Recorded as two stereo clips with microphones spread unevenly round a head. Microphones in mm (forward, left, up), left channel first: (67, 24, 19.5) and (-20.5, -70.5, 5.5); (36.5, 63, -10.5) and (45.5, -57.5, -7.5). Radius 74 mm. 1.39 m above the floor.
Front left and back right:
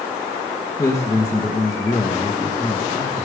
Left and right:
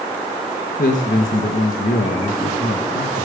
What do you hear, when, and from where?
0.8 s a man speaking: 115° left, 1.3 m